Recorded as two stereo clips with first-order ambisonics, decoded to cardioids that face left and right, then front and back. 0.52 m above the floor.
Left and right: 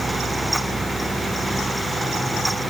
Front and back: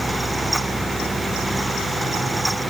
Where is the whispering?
I don't hear whispering.